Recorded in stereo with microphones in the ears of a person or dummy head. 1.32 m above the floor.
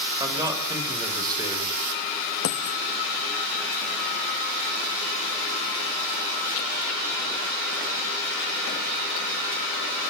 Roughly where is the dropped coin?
Left.